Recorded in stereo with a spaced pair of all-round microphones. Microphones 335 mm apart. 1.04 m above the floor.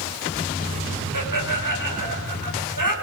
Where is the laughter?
70° right (ahead or behind), 5 m.